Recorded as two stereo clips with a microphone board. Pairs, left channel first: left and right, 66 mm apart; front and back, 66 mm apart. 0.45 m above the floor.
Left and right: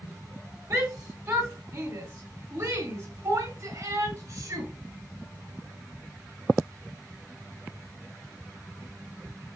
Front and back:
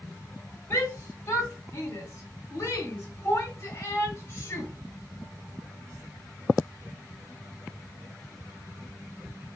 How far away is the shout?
About 2.5 m.